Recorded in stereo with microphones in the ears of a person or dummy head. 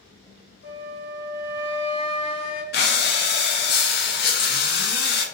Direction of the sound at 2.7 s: 45° left (ahead or behind).